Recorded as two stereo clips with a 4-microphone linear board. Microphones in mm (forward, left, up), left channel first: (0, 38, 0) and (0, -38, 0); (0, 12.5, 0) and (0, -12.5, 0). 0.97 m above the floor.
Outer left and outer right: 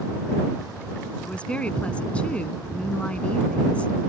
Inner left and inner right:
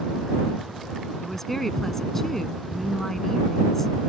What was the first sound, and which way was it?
A woman speaking, 15° left (ahead or behind).